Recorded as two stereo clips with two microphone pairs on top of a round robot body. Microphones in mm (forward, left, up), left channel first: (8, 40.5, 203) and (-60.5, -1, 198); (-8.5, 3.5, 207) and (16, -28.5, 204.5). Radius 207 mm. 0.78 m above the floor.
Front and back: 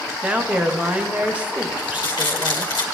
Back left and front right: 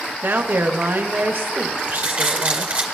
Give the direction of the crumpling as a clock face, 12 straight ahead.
12 o'clock.